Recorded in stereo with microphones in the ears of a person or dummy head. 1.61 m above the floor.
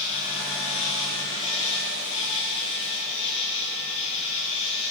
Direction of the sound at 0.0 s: 20° left (ahead or behind).